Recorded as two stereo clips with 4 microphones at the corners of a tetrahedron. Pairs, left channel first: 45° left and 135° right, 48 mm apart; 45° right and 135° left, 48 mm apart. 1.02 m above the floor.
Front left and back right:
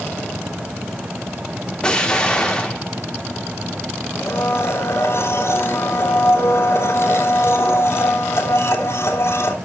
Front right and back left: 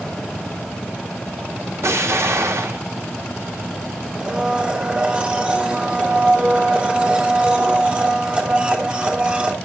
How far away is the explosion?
About 2.0 m.